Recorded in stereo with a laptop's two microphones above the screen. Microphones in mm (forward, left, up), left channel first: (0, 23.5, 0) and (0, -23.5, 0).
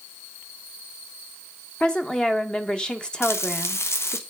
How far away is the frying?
About 0.8 m.